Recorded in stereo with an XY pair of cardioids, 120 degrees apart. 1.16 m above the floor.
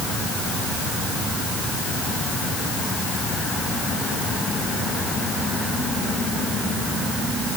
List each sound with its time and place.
Only background noise.